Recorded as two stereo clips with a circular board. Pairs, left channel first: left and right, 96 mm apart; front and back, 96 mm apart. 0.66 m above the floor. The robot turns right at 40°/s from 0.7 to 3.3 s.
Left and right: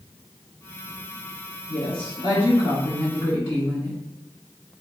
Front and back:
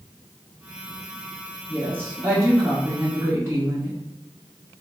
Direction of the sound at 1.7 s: 60° left.